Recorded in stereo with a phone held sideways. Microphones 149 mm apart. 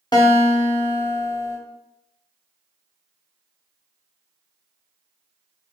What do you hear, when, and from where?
0.1 s a guitar: 30° left (ahead or behind), 0.6 m